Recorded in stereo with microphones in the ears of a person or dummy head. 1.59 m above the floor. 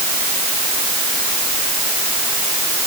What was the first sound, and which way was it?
Only background noise.